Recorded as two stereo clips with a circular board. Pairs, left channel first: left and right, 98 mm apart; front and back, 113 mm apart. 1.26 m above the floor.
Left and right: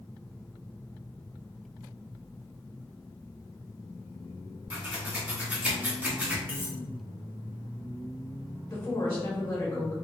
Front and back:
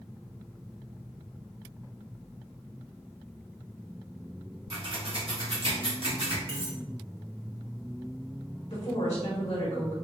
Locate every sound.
4.7 s scissors: 160° right, 1.0 m
6.5 s cutlery clinking: 155° right, 1.2 m
8.7 s a woman speaking: 25° left, 1.0 m